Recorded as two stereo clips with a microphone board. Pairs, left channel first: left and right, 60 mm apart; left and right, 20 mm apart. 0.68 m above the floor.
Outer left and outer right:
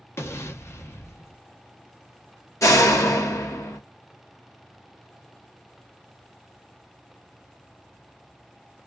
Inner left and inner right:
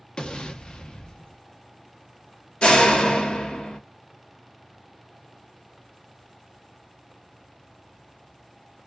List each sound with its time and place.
0.2 s an explosion: 45° left (ahead or behind), 0.6 m
2.6 s a door slam: 60° left (ahead or behind), 0.8 m